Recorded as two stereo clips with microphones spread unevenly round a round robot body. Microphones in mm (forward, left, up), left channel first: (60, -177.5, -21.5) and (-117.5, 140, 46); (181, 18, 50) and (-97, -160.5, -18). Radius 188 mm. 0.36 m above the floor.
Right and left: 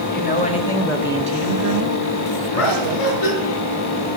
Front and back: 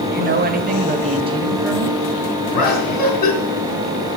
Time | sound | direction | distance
0.1 | a woman speaking | 105° right | 1.6 m
2.5 | laughter | 5° right | 4 m